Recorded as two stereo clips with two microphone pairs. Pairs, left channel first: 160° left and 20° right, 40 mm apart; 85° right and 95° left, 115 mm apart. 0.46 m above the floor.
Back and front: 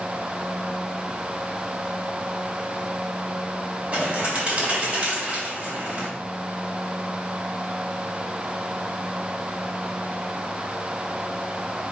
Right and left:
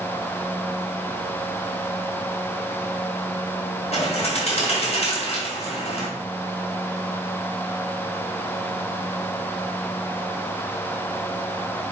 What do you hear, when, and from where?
3.9 s a bird: 80° right, 3 m